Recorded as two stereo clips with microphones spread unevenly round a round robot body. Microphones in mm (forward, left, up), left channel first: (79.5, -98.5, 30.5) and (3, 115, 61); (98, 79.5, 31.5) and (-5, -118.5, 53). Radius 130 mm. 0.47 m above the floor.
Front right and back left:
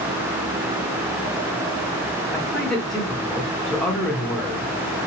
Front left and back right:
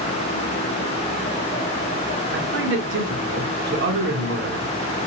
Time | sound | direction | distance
2.3 | a man speaking | 150° right | 1.0 m